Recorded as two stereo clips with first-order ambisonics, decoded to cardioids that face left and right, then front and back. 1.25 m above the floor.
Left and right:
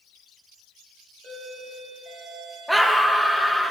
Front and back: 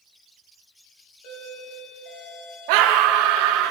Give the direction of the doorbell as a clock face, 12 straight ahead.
1 o'clock.